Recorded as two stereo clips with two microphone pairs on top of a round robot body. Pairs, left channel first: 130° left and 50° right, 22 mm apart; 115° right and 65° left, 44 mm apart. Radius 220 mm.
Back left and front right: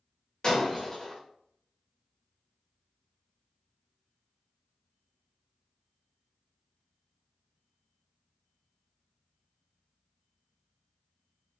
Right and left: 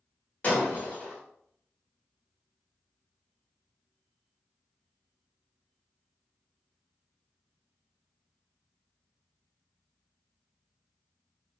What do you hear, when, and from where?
0.4 s breaking glass: 170° right, 1.9 m